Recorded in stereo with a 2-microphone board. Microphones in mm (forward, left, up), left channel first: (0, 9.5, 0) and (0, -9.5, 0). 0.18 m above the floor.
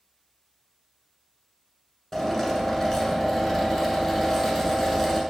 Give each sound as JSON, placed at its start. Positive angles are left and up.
{"t": 2.1, "sound": "a drill", "side_deg": 20, "distance_m": 0.8}